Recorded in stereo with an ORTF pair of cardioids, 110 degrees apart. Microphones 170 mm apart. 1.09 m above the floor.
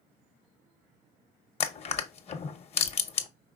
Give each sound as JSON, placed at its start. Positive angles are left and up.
{"t": 1.6, "sound": "crushing", "azimuth_deg": 40, "distance_m": 0.7}